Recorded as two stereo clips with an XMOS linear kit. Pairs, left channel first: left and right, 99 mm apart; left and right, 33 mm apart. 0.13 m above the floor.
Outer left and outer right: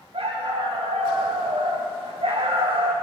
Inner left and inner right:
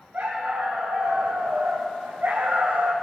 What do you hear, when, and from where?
0.1 s a dog barking: 80° right, 3.5 m